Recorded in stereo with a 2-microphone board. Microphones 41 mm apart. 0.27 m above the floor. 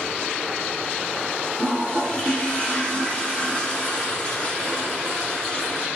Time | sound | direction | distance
1.6 | a toilet flushing | 30° left (ahead or behind) | 0.6 m